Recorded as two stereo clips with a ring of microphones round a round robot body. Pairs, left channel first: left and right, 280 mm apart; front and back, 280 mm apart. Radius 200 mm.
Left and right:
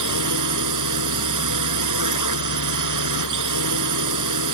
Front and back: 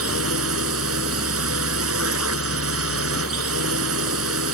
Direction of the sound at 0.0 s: 125° right.